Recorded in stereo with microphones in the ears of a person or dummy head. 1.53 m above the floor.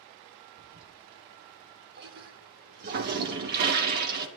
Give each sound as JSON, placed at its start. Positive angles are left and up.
{"t": 0.6, "sound": "a toilet flushing", "side_deg": -50, "distance_m": 1.4}